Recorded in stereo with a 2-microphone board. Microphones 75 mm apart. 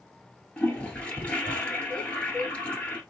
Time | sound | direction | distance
0.6 | a toilet flushing | 15° left (ahead or behind) | 1.4 m